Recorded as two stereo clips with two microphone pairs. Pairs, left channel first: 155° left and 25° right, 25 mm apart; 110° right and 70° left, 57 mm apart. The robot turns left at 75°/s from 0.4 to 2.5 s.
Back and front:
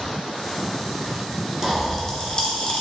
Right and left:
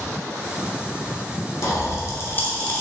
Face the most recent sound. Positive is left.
turn(degrees=-170)